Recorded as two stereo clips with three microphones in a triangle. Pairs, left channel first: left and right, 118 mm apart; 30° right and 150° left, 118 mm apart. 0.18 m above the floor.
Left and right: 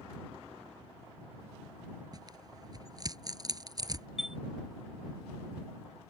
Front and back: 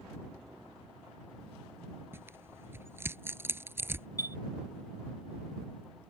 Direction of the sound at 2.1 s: 140° right.